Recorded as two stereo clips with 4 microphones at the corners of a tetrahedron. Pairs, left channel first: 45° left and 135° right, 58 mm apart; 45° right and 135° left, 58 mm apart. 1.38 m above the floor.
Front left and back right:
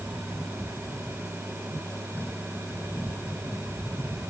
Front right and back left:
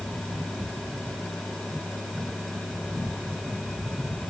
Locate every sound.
Only background noise.